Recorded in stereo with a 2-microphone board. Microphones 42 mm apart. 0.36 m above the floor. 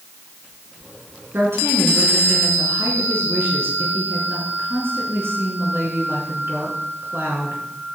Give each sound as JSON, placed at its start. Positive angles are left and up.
{"t": 1.3, "sound": "a woman speaking", "side_deg": -75, "distance_m": 5.0}